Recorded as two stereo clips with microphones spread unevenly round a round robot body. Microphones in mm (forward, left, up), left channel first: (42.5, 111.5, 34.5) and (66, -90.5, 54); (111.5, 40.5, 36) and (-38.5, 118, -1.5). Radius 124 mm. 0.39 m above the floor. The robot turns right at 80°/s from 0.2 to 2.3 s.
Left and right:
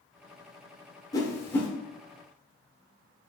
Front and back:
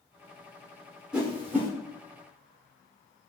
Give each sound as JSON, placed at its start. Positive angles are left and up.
{"t": 1.1, "sound": "a whoosh", "azimuth_deg": 110, "distance_m": 1.0}